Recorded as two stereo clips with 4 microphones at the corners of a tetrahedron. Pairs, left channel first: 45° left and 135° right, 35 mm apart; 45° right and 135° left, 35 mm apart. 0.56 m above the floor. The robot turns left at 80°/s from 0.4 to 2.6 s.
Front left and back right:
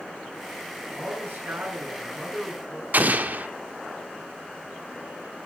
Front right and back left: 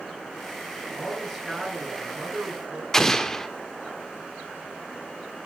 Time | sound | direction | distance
0.9 | a man speaking | 95° right | 8 m
2.9 | an explosion | 120° right | 1.4 m